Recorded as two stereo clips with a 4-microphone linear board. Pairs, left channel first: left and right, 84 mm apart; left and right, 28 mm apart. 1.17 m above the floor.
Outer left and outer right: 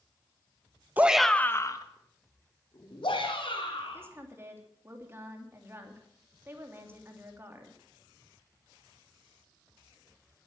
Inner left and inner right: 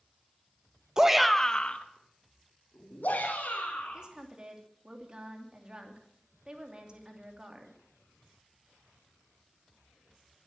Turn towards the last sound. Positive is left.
turn(degrees=-30)  # may be behind; listen again after turning